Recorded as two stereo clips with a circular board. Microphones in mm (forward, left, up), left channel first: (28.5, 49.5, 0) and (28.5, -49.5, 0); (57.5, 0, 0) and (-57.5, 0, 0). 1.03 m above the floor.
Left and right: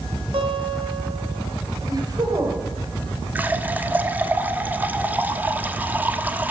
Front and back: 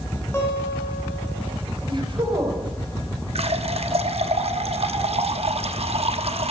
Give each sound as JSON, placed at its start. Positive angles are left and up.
{"t": 0.3, "sound": "a guitar", "azimuth_deg": -70, "distance_m": 4.0}
{"t": 1.9, "sound": "a woman speaking", "azimuth_deg": -135, "distance_m": 4.0}
{"t": 3.4, "sound": "a running tap", "azimuth_deg": -160, "distance_m": 1.0}